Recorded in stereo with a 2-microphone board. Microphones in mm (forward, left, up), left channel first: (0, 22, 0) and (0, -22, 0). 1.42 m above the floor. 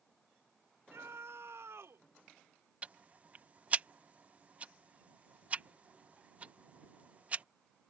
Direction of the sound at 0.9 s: 85° right.